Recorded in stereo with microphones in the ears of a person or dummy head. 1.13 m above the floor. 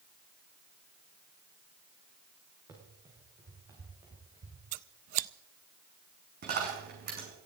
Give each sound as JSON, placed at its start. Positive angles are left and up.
{"t": 2.7, "sound": "running footsteps", "side_deg": -20, "distance_m": 5.0}
{"t": 4.7, "sound": "scissors", "side_deg": -45, "distance_m": 0.5}
{"t": 6.4, "sound": "a dropped coin", "side_deg": -50, "distance_m": 5.5}